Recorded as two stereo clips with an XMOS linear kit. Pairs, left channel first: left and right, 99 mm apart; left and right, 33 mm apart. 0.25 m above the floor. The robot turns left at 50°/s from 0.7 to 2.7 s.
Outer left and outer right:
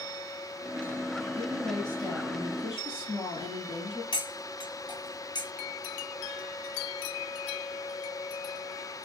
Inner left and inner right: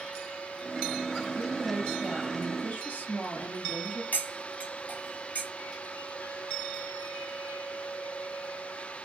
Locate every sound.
1.4 s a woman speaking: 170° right, 1.5 m; by 4.0 s 120° left, 1.5 m
4.1 s cutlery clinking: 50° left (ahead or behind), 1.1 m